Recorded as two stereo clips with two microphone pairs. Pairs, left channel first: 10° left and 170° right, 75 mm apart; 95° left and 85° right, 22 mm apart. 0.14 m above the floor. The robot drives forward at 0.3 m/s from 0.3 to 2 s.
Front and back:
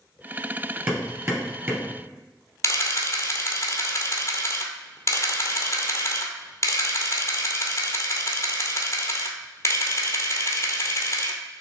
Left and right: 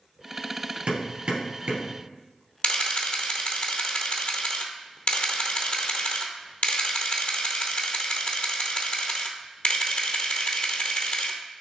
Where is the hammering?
115° right, 2.5 m; by 1.9 s 125° right, 2.5 m.